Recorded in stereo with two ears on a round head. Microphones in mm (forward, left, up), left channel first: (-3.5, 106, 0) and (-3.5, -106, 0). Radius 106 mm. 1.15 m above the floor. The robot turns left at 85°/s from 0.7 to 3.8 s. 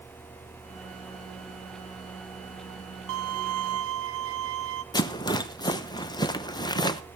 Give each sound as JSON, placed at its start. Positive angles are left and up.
{"t": 3.1, "sound": "a violin", "azimuth_deg": -55, "distance_m": 1.5}
{"t": 4.9, "sound": "a rattle", "side_deg": 15, "distance_m": 0.7}